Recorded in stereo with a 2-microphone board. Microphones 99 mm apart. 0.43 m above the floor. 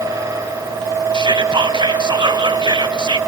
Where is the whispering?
50° right (ahead or behind), 1.6 m.